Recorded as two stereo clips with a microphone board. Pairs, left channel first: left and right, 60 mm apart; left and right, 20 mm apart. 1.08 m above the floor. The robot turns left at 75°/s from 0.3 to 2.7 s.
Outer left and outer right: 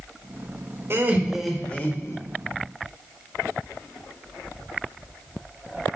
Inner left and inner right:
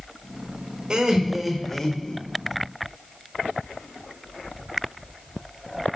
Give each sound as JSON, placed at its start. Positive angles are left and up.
{"t": 0.9, "sound": "laughter", "azimuth_deg": -135, "distance_m": 1.4}